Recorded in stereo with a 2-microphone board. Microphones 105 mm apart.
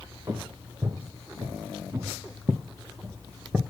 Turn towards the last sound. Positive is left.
turn(degrees=-15)  # may be behind; listen again after turning